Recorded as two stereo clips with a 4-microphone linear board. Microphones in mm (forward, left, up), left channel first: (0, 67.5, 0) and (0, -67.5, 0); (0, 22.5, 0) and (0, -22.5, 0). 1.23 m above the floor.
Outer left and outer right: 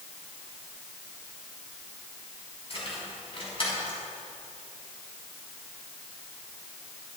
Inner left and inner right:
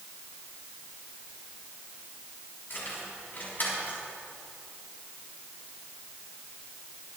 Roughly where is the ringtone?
No ringtone in this recording.